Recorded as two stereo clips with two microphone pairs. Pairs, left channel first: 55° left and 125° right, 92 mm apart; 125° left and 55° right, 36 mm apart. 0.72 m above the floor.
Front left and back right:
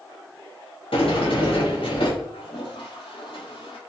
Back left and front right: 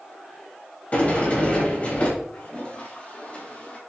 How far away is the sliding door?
About 4 m.